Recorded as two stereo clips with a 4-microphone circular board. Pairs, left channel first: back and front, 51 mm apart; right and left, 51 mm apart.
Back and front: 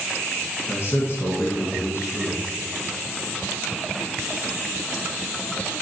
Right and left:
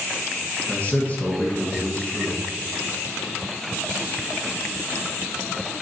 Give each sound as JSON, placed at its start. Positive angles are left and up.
{"t": 0.7, "sound": "a man speaking", "azimuth_deg": -150, "distance_m": 2.5}